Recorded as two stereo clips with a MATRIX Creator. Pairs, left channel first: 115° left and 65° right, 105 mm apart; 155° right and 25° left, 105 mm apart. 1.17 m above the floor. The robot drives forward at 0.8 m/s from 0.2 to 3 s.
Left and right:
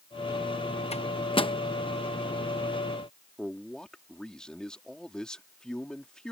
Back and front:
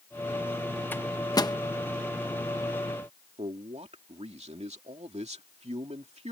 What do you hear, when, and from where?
0.9 s a microwave: 130° left; by 1.6 s 150° left
3.4 s a man speaking: 30° left